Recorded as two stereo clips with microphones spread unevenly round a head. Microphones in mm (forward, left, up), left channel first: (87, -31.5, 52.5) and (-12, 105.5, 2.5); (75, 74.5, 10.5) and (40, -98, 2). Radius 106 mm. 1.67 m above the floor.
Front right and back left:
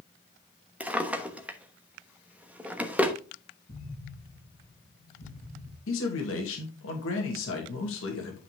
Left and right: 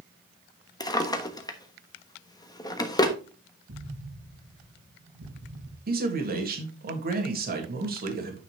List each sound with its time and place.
0.8 s a drawer: 25° left, 1.1 m
3.7 s an explosion: 105° right, 5 m
5.9 s a man speaking: 65° right, 2.5 m